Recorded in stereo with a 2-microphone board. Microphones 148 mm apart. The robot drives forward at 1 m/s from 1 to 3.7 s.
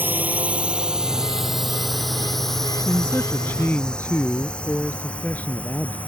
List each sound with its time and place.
0.0 s a drone: 15° right (ahead or behind); by 6.1 s 10° left (ahead or behind)
2.9 s a man speaking: 15° left (ahead or behind); by 6.0 s 10° left (ahead or behind)